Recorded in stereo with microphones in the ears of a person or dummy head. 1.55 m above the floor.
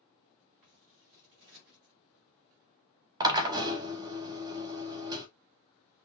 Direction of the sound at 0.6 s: 40° right (ahead or behind).